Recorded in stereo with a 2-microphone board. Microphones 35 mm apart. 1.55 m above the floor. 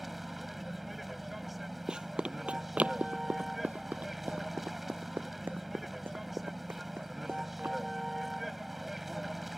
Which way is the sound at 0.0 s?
5° right (ahead or behind).